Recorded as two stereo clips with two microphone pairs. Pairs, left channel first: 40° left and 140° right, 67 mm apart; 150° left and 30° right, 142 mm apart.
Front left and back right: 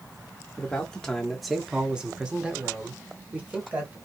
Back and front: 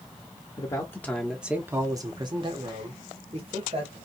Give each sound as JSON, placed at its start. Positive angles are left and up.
{"t": 0.6, "sound": "a man speaking", "azimuth_deg": 100, "distance_m": 0.7}